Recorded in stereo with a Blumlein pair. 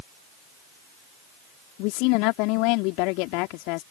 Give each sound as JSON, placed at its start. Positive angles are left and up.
{"t": 1.8, "sound": "a woman speaking", "azimuth_deg": 45}